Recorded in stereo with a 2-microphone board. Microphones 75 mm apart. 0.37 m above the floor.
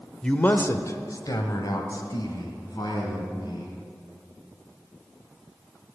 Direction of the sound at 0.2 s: 10° left (ahead or behind).